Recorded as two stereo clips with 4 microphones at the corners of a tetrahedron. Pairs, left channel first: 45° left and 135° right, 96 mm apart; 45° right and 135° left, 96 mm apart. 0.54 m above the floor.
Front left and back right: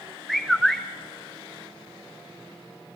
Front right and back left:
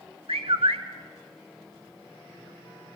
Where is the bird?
130° left, 0.8 m.